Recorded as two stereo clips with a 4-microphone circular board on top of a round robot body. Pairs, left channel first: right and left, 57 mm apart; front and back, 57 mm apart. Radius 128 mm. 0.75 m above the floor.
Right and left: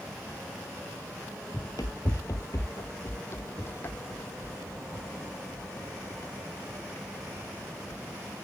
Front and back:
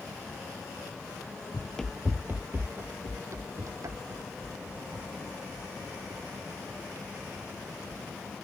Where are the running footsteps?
45° right; by 8.1 s 150° right.